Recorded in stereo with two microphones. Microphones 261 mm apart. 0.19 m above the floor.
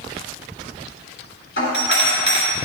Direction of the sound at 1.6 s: 45° left (ahead or behind).